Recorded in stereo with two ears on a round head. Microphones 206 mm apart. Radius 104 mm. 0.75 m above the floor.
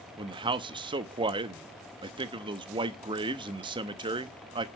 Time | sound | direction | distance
0.2 | a man speaking | 20° right (ahead or behind) | 0.7 m